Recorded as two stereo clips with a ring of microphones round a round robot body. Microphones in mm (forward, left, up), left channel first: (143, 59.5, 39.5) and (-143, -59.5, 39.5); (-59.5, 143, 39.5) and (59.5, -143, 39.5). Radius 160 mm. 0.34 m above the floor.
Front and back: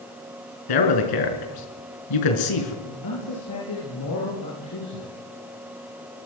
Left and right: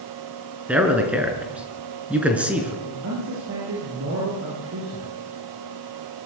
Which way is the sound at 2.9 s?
20° right.